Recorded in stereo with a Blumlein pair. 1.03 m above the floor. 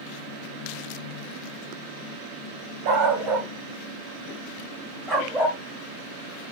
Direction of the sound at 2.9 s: 35° right.